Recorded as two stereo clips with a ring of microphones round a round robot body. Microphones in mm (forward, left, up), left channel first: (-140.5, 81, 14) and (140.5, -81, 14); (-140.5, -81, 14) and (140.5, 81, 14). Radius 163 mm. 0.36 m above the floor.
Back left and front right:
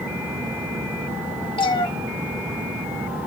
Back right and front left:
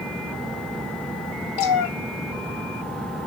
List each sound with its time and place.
1.6 s a cat meowing: 135° right, 0.8 m